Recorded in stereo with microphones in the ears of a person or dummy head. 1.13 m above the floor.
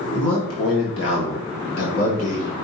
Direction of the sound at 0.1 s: 65° left (ahead or behind).